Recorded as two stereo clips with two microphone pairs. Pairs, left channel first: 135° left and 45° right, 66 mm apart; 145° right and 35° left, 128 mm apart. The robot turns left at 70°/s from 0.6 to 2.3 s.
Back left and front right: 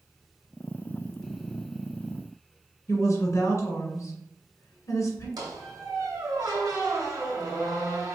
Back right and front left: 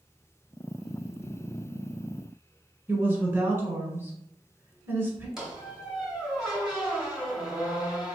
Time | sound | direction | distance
2.9 | a woman speaking | 105° left | 1.5 m
5.4 | a squeak | 50° right | 1.1 m